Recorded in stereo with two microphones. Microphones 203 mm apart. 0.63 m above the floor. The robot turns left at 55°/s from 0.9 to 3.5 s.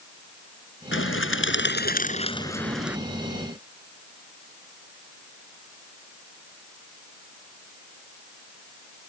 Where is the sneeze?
I don't hear a sneeze.